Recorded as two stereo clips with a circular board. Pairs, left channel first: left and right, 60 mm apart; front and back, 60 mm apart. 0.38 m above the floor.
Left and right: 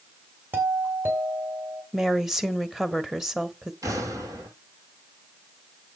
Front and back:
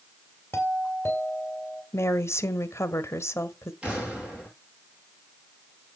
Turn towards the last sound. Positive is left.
turn(degrees=-110)